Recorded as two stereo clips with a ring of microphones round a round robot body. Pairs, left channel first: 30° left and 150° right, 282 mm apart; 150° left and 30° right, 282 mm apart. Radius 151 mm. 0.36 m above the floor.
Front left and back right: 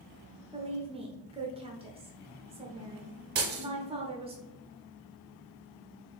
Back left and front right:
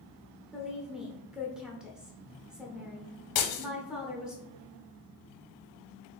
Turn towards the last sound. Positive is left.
turn(degrees=155)